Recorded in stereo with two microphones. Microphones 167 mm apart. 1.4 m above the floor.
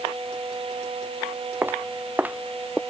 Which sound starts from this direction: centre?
Footsteps, at 1.6 s.